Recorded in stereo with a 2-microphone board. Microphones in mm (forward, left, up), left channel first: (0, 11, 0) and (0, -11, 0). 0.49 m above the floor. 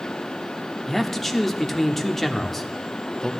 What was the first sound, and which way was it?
A man speaking, 10° left (ahead or behind).